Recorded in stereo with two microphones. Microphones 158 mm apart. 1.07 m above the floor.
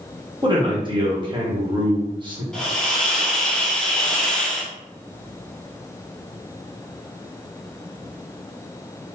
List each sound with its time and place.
0.4 s a man speaking: 30° right (ahead or behind), 1.1 m
2.5 s a hiss: 5° left (ahead or behind), 0.7 m